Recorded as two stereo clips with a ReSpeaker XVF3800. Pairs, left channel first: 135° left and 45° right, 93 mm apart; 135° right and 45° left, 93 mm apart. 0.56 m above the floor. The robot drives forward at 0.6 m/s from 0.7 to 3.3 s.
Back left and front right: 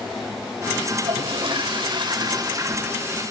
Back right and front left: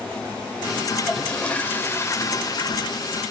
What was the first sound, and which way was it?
A toilet flushing, 50° right.